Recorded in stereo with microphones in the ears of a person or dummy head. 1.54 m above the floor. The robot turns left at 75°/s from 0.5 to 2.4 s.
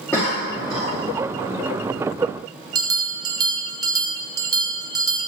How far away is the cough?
About 2 m.